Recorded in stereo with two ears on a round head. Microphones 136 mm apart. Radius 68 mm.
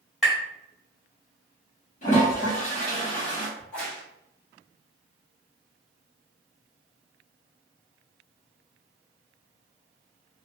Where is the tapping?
5° right (ahead or behind), 1.3 m.